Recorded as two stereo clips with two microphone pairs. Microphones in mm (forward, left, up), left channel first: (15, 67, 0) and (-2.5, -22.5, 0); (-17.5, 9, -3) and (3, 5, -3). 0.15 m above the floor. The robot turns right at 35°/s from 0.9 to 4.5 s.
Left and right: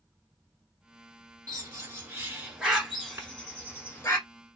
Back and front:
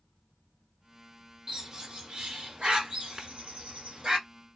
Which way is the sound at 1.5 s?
65° right.